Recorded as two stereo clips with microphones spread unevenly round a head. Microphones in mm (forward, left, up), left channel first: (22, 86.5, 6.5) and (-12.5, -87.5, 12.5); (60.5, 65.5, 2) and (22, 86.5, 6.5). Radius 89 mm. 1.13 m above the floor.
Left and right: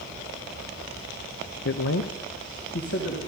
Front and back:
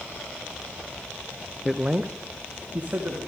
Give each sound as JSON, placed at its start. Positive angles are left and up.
{"t": 1.6, "sound": "a man speaking", "azimuth_deg": 60, "distance_m": 0.5}